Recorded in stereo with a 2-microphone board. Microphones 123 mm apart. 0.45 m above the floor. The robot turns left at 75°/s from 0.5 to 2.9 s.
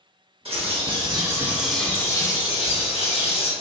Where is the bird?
90° right, 0.8 m; by 3.5 s 90° left, 0.8 m.